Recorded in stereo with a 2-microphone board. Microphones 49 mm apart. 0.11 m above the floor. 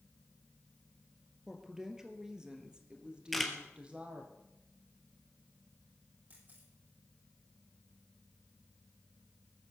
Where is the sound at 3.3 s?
Centre (ahead or behind), 2.5 m.